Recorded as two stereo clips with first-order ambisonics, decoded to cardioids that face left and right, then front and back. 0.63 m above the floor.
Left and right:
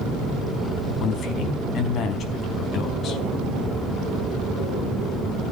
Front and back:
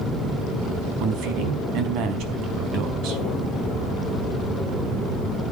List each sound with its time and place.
1.0 s a man speaking: 145° left, 4.5 m